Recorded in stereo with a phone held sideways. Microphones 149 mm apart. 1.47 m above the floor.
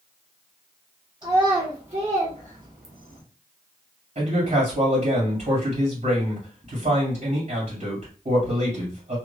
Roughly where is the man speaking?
Right.